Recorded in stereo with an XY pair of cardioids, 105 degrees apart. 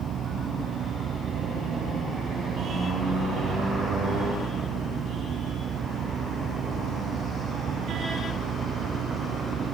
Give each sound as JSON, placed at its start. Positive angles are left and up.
{"t": 0.0, "sound": "a fan", "azimuth_deg": -60}